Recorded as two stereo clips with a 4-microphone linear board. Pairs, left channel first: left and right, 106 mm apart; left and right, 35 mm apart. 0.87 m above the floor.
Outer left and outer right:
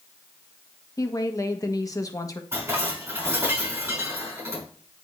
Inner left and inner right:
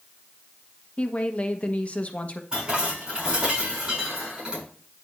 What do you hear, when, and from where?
1.0 s a woman speaking: 35° left (ahead or behind), 1.1 m
2.5 s dishes clattering: 25° right (ahead or behind), 5 m